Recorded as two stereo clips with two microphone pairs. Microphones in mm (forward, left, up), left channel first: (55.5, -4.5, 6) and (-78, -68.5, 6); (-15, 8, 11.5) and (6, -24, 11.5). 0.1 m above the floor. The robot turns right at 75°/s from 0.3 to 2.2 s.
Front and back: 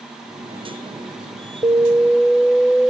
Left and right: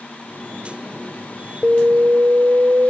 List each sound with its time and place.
1.6 s an alarm: 105° right; by 2.9 s 65° right